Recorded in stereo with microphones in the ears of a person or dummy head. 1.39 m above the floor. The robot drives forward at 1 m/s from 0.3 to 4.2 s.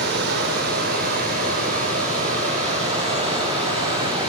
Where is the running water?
60° right (ahead or behind), 3.5 m; by 4.3 s 30° right (ahead or behind), 6.5 m.